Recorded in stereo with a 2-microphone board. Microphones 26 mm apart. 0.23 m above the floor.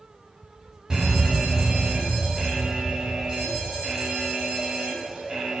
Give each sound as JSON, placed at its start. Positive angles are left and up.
{"t": 0.9, "sound": "an alarm", "side_deg": -30, "distance_m": 2.5}